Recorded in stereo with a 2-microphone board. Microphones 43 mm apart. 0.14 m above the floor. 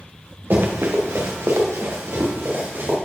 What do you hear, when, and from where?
0.5 s running footsteps: 55° right (ahead or behind), 1.5 m; by 3.0 s 65° right (ahead or behind), 2.5 m